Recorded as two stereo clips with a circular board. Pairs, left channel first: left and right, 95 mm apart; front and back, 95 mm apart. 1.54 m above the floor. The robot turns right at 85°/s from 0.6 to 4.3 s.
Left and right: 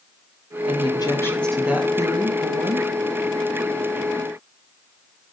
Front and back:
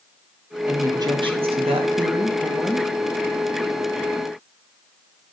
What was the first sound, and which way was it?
A woman speaking, 105° left.